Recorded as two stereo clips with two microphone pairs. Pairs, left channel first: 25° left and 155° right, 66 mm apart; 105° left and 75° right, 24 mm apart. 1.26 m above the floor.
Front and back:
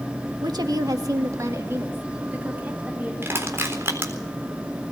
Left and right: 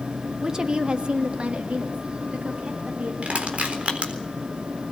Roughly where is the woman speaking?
Behind right.